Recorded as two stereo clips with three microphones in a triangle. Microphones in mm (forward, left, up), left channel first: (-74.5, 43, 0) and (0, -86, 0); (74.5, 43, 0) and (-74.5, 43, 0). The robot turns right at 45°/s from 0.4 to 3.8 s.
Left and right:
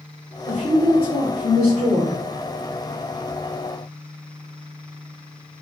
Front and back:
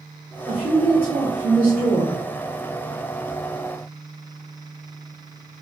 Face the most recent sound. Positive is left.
turn(degrees=20)